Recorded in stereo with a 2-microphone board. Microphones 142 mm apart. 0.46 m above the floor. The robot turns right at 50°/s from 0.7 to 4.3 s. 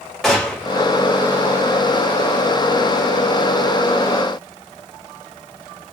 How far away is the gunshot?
About 1.1 m.